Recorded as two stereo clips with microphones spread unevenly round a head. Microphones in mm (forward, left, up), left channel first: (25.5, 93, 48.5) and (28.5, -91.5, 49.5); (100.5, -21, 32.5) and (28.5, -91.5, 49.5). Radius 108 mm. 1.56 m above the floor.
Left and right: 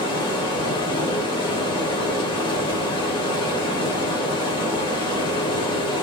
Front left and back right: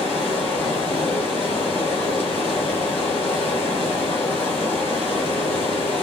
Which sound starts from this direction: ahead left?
Running water, at 0.0 s.